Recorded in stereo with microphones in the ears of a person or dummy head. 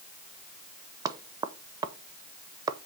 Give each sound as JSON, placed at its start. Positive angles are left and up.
{"t": 1.1, "sound": "knocking", "side_deg": -20, "distance_m": 0.6}